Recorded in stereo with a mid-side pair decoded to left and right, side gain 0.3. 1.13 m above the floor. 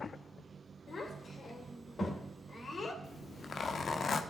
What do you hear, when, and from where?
0.9 s a child speaking: 60° left, 3.5 m
3.0 s a zipper: 65° left, 1.3 m